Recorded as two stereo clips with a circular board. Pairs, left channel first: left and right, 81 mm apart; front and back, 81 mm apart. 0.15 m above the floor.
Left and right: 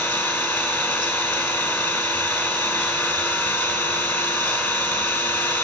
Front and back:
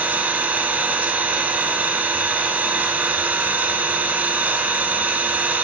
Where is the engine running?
140° left, 1.1 m.